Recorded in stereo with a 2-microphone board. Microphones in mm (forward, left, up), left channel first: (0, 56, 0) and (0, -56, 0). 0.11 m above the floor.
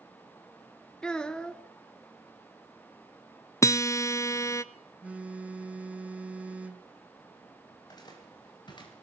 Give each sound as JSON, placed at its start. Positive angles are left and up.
{"t": 1.0, "sound": "a child speaking", "side_deg": 10, "distance_m": 1.0}
{"t": 3.6, "sound": "a guitar", "side_deg": 30, "distance_m": 0.6}
{"t": 5.0, "sound": "a phone buzzing", "side_deg": -10, "distance_m": 1.5}
{"t": 7.7, "sound": "footsteps", "side_deg": 35, "distance_m": 7.0}